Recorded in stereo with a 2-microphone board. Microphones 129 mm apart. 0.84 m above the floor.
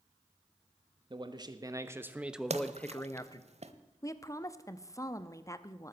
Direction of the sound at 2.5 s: 55° right (ahead or behind).